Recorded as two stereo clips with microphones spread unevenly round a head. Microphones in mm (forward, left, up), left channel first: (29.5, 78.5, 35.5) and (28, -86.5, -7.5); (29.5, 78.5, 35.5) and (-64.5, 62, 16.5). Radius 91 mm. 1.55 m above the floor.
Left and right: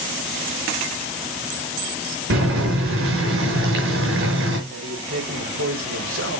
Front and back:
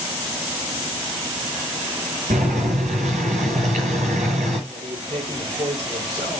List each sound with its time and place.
2.3 s boiling: 120° right, 4.5 m
4.7 s a man speaking: 105° right, 4.5 m